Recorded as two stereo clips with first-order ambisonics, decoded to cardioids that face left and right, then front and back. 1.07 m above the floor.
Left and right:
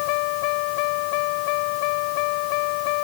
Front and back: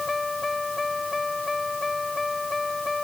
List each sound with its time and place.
0.0 s a vehicle: 80° left